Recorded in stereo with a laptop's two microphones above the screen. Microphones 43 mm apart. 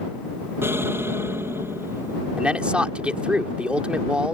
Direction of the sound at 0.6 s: 65° right (ahead or behind).